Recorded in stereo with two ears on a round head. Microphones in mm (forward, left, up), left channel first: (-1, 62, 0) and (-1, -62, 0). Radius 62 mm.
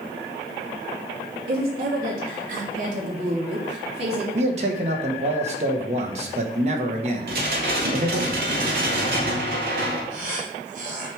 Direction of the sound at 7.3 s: 75° right (ahead or behind).